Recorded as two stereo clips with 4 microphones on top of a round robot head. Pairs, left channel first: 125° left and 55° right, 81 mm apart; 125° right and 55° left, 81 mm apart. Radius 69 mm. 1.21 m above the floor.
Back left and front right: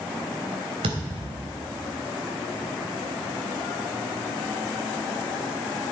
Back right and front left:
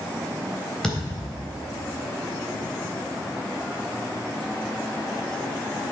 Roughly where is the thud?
Ahead right.